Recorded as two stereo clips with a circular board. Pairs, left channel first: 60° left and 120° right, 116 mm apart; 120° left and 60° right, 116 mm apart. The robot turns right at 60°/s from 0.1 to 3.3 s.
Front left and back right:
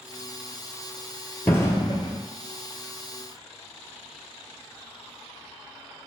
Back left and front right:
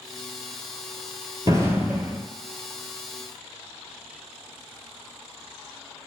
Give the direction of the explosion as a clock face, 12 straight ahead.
12 o'clock.